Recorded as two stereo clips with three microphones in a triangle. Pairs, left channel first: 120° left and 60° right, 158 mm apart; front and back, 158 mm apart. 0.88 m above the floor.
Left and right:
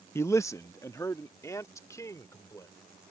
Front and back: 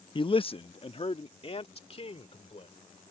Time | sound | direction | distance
0.1 | a man speaking | 50° left | ?